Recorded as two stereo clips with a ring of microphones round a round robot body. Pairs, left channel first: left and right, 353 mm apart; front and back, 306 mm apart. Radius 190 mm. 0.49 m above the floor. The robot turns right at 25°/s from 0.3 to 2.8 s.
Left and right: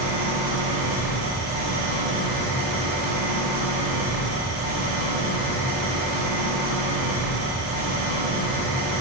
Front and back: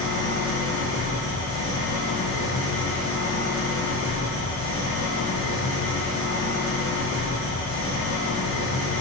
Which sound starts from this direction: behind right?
An engine running, at 0.0 s.